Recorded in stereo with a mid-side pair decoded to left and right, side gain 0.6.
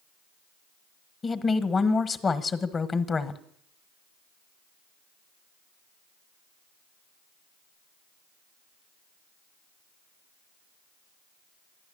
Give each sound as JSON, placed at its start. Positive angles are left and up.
{"t": 1.2, "sound": "a woman speaking", "azimuth_deg": 30, "distance_m": 1.3}